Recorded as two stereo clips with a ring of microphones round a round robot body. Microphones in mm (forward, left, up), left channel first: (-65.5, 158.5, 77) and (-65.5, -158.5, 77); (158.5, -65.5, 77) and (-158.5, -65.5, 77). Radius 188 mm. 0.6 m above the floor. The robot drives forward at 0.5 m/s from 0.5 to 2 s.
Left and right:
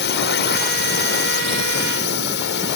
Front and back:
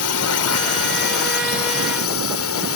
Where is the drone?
35° left.